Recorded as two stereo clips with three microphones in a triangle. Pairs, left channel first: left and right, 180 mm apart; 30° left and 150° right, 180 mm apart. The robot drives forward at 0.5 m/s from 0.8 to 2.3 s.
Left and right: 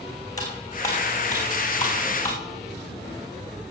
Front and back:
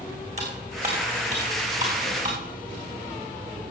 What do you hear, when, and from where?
0.4 s cutlery clinking: 160° left, 4.5 m; by 2.4 s 165° left, 5.5 m